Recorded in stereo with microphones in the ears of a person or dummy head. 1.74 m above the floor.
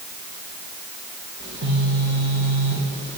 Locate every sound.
1.4 s a phone buzzing: 55° right (ahead or behind), 0.9 m